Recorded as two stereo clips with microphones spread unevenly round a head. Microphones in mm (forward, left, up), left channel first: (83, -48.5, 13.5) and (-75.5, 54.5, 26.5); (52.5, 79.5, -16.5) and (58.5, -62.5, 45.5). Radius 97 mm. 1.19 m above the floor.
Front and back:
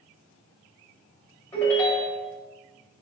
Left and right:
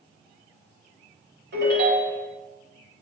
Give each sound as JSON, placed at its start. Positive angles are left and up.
{"t": 1.5, "sound": "a ringtone", "azimuth_deg": -110, "distance_m": 4.0}